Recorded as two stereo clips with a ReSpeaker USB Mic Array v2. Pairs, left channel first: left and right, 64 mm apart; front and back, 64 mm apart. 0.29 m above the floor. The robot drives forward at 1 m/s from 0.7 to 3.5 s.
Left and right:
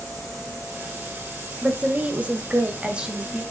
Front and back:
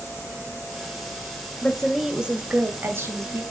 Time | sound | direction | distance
1.6 | a woman speaking | 55° right | 1.2 m